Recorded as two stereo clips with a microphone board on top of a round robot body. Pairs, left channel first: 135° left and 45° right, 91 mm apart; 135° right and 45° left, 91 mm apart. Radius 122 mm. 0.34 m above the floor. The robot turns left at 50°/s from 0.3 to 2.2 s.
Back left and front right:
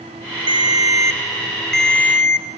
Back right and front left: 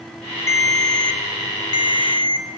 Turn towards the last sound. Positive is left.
turn(degrees=-165)